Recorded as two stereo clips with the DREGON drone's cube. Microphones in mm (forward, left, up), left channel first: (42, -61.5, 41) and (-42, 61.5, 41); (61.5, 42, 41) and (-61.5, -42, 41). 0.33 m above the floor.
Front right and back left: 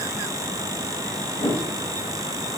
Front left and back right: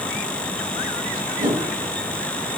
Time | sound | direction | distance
1.4 | a whoosh | 110° right | 1.3 m